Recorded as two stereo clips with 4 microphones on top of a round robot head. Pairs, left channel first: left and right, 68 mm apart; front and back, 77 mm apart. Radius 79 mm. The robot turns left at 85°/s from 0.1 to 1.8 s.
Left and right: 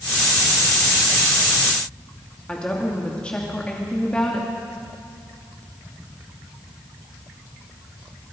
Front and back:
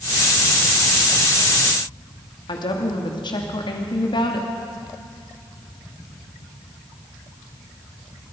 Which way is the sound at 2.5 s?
10° left.